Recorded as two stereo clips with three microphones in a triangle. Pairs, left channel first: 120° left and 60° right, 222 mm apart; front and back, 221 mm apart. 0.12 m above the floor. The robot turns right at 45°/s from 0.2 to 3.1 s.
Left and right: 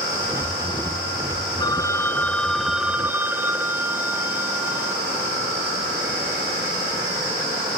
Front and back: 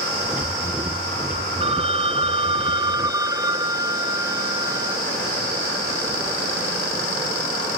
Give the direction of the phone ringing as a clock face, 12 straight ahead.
7 o'clock.